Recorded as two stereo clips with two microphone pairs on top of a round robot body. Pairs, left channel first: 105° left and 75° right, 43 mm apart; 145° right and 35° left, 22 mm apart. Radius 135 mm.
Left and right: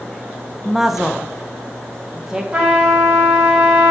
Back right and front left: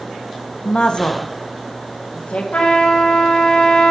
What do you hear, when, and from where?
0.7 s a woman speaking: 170° right, 0.9 m; by 2.4 s 155° right, 1.7 m
2.5 s a trumpet: 150° right, 3 m